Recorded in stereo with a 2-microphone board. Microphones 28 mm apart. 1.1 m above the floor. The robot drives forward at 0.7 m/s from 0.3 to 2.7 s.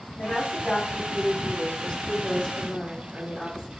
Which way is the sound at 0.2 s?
70° left (ahead or behind).